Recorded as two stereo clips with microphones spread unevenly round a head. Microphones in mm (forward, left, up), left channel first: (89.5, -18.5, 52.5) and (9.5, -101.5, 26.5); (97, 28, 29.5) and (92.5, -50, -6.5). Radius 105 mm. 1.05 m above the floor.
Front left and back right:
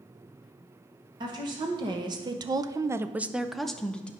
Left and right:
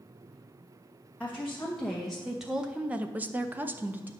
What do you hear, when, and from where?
1.2 s a woman speaking: 175° left, 1.2 m; by 4.1 s 40° right, 0.9 m